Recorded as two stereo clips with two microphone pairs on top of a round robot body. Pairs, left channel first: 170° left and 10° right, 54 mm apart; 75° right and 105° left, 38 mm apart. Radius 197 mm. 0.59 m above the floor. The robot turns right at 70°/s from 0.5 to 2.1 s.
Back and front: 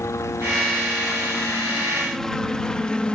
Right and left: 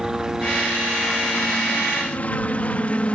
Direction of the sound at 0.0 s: 175° left.